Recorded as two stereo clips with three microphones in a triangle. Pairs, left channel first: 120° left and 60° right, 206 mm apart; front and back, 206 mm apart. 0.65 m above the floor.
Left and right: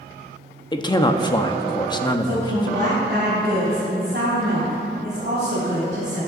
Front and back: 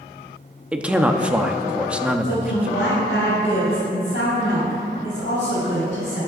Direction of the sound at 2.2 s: 25° right.